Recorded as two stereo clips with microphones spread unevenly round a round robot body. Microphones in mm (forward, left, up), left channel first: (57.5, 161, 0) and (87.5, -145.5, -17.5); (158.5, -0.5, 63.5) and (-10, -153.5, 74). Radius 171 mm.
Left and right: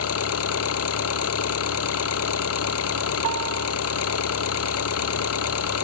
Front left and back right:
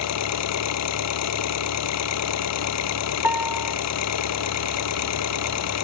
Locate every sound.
0.0 s an engine running: 50° left
3.2 s a piano: 55° right